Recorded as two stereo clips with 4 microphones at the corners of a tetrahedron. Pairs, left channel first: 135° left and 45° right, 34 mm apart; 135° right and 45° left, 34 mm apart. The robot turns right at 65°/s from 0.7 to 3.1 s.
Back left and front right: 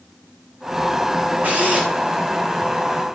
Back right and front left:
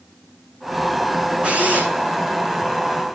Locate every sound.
1.4 s a drill: 15° right, 8 m; by 1.9 s 15° left, 8 m